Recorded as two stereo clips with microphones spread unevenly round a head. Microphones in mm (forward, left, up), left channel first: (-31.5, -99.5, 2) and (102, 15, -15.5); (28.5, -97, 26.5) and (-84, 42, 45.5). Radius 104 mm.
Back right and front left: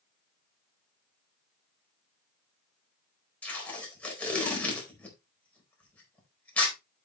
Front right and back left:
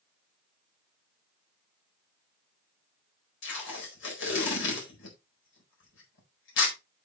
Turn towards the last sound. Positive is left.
turn(degrees=-55)